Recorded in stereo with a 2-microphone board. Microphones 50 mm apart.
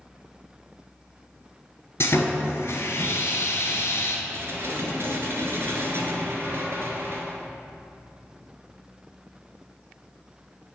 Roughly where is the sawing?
Left.